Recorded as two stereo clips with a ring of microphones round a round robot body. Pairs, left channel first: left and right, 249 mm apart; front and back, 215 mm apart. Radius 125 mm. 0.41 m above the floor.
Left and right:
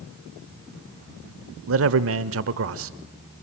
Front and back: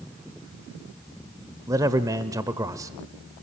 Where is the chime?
I don't hear a chime.